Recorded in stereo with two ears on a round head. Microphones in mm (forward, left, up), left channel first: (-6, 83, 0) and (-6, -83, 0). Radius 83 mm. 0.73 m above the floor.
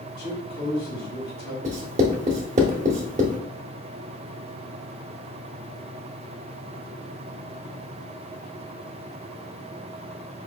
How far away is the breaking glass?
I don't hear breaking glass.